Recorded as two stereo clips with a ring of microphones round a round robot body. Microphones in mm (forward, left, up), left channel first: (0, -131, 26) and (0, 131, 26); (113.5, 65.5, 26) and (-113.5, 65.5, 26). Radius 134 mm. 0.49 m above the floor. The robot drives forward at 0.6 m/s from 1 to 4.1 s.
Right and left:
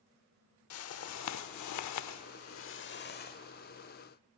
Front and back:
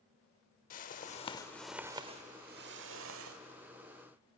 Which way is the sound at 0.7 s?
60° right.